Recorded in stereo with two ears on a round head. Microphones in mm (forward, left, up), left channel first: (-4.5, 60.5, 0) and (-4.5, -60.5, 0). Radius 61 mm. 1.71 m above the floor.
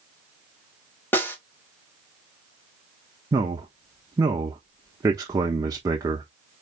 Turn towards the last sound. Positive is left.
turn(degrees=-25)  # may be behind; listen again after turning